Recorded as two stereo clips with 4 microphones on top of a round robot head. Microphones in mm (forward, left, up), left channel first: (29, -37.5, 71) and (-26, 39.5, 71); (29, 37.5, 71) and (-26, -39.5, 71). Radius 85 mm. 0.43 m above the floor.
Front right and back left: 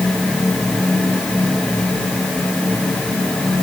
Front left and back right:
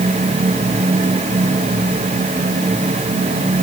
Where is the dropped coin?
I don't hear a dropped coin.